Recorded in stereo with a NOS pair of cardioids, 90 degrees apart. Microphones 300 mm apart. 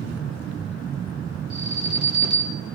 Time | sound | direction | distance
1.5 | an alarm | 70° right | 4.5 m